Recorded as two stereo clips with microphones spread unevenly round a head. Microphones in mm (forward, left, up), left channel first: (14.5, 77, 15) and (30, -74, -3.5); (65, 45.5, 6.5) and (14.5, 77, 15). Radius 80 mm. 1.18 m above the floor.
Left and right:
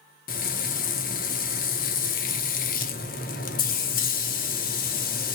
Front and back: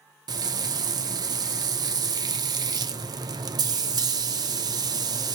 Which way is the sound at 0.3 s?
140° left.